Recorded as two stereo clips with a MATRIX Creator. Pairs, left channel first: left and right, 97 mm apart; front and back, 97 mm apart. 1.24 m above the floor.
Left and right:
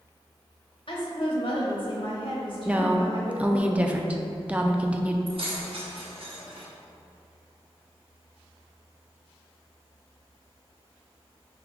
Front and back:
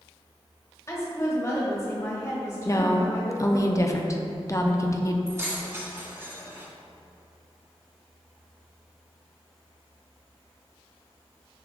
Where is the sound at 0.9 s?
60° left, 1.3 m.